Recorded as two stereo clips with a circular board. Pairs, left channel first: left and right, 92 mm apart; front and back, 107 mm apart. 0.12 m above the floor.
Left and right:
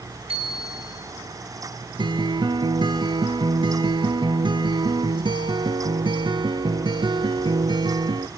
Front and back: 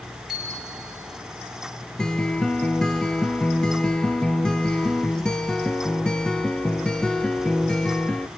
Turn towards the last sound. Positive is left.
turn(degrees=-80)